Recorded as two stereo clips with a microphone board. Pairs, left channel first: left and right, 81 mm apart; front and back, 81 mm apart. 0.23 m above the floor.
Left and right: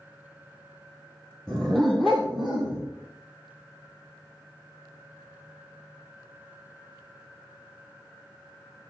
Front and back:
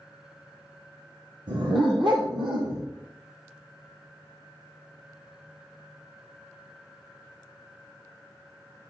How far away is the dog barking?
About 2 m.